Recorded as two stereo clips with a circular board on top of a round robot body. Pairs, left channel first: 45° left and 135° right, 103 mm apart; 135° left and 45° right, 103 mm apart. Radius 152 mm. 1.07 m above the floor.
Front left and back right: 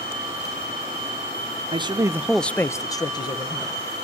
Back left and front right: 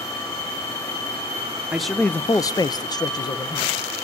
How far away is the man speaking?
About 0.9 m.